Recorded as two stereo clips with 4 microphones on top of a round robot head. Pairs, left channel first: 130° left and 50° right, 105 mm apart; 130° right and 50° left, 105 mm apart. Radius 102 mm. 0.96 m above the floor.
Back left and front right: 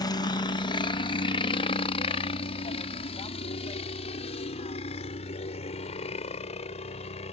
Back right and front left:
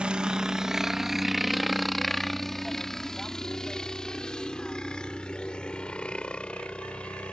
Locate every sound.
0.0 s a helicopter: 125° left; by 7.3 s 150° left